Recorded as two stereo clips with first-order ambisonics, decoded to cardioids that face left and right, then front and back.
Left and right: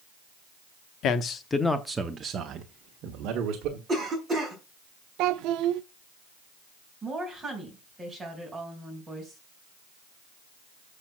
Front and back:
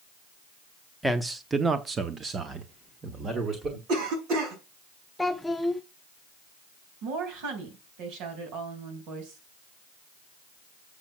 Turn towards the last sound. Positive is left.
turn(degrees=-170)